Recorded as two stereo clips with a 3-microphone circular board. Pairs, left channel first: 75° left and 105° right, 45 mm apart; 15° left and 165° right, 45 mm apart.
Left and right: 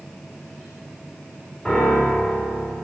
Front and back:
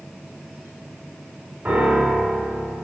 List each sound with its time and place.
1.6 s a piano: 150° left, 1.8 m